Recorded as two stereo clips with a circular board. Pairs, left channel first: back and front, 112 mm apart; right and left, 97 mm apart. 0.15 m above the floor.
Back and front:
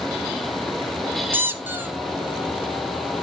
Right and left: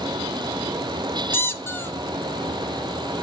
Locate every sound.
1.3 s a squeak: 50° right, 1.2 m